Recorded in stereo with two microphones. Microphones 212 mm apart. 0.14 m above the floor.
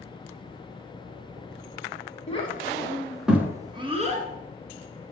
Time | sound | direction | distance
2.3 | a child speaking | 30° left (ahead or behind) | 1.6 m